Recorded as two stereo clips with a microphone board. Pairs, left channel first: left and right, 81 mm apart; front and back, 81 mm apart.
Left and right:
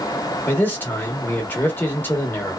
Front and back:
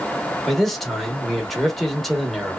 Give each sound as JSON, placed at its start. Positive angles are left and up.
{"t": 0.5, "sound": "a man speaking", "azimuth_deg": 80, "distance_m": 0.9}